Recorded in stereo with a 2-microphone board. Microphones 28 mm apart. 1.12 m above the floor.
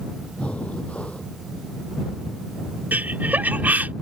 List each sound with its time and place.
0.4 s breathing: 50° left (ahead or behind)
2.9 s laughter: 85° right